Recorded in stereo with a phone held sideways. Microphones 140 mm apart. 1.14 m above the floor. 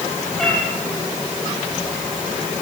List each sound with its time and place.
0.4 s a cat meowing: 5° left (ahead or behind), 6.5 m